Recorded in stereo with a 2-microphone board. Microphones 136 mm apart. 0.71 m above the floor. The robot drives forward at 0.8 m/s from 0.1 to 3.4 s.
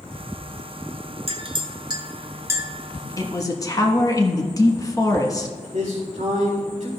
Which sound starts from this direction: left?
A man speaking, at 3.2 s.